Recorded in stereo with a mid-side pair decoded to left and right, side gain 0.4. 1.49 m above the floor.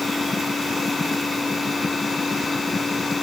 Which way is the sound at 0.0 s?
25° left.